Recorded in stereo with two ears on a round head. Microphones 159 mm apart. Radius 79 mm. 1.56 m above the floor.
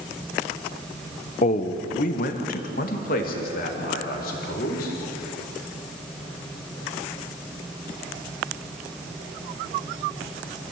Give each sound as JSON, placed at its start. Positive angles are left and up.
{"t": 1.4, "sound": "a man speaking", "side_deg": 40, "distance_m": 1.1}